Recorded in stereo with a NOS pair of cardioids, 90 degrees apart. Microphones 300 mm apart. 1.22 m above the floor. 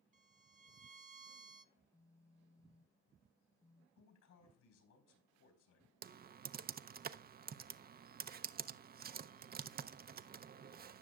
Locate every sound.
0.1 s a violin: 25° right, 0.8 m
1.8 s a phone buzzing: 10° left, 0.8 m
4.0 s a man speaking: 70° left, 4 m
6.0 s typing on a keyboard: 30° right, 0.5 m